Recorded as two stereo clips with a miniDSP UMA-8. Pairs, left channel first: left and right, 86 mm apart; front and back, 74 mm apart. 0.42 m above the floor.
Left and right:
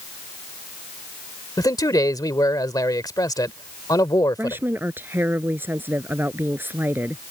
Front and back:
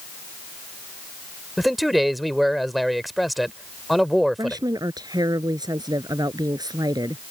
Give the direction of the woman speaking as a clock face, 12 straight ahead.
5 o'clock.